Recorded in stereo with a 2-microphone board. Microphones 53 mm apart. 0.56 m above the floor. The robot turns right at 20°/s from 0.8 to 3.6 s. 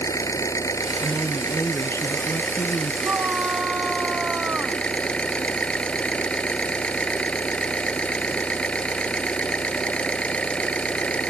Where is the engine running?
100° left; by 11.3 s 155° left.